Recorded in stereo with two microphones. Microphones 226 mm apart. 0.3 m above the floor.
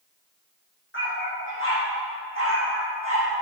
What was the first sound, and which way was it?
A dog barking, 60° left (ahead or behind).